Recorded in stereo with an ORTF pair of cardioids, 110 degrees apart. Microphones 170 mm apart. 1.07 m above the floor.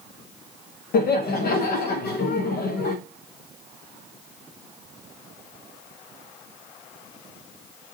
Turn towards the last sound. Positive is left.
turn(degrees=70)